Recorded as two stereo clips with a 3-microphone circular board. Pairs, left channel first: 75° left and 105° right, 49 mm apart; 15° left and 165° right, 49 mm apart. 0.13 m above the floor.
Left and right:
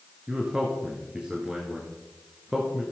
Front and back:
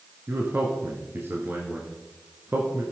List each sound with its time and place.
0.3 s a man speaking: 170° right, 1.5 m